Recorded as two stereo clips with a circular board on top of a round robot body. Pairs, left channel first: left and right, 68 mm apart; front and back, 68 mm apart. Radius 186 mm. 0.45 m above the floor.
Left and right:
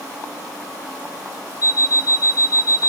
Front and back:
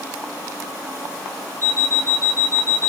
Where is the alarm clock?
55° left, 2.0 m.